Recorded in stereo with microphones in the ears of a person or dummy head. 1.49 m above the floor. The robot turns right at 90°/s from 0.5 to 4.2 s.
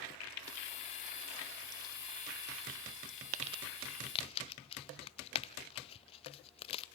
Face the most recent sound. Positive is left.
turn(degrees=30)  # may be behind; listen again after turning